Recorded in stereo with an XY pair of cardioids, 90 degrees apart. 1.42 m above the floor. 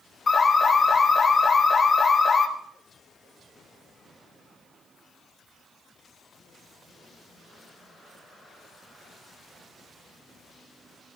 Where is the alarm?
35° left, 4 m.